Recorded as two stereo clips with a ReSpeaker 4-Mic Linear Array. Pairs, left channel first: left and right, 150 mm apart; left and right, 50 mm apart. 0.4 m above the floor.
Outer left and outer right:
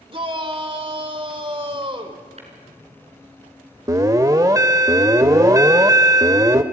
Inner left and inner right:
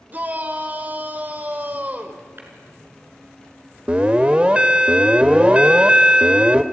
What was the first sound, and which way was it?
A shout, 35° right (ahead or behind).